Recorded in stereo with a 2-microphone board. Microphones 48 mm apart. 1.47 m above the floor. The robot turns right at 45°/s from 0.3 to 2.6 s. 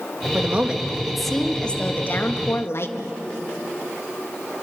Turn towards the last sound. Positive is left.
turn(degrees=60)